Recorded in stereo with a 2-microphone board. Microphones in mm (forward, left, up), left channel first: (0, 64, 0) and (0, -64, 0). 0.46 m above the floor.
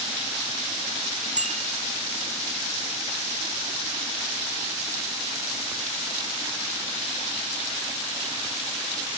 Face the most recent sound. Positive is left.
turn(degrees=-75)  # may be behind; listen again after turning